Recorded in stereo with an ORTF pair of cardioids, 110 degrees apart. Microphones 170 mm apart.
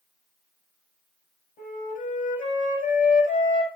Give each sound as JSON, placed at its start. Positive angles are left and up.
{"t": 1.6, "sound": "a flute", "azimuth_deg": 55, "distance_m": 6.5}